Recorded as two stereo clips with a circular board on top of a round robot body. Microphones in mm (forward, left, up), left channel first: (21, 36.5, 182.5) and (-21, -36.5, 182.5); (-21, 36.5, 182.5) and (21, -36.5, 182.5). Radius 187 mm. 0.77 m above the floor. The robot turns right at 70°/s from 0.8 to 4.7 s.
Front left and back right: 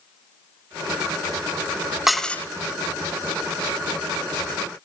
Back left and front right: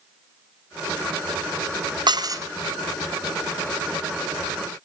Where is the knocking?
No knocking in this recording.